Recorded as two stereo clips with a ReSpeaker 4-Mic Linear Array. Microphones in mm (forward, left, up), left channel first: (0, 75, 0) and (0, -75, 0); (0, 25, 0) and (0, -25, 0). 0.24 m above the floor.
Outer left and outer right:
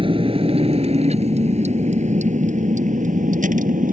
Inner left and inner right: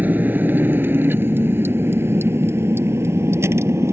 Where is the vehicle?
35° right (ahead or behind); by 3.9 s 60° right (ahead or behind).